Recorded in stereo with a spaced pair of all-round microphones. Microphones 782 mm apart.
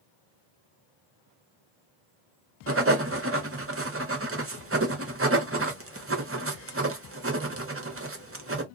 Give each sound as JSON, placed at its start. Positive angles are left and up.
{"t": 2.7, "sound": "writing", "side_deg": -20, "distance_m": 0.6}